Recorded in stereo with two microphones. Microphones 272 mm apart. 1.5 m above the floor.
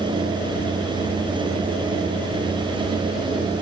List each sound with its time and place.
Only background noise.